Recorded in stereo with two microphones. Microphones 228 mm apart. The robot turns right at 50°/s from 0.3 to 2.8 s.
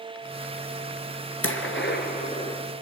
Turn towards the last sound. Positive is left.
turn(degrees=175)